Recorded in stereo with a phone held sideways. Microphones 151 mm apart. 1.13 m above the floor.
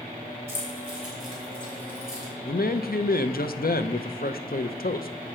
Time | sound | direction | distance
0.5 | keys jangling | 15° right (ahead or behind) | 3.5 m
2.5 | a man speaking | 80° left | 0.6 m